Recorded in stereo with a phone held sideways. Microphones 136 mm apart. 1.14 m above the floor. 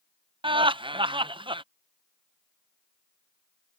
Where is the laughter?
35° right (ahead or behind).